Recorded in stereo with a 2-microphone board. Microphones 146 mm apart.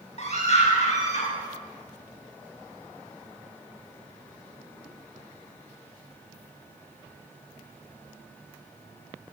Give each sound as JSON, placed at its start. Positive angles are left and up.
{"t": 0.2, "sound": "a scream", "side_deg": 50, "distance_m": 8.0}